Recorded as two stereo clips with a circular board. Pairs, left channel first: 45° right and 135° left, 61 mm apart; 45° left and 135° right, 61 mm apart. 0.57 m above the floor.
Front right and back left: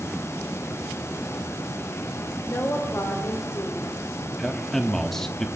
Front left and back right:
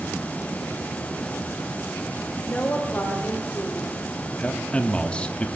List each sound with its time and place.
2.5 s a woman speaking: 10° right, 2 m
4.4 s a man speaking: 25° left, 0.8 m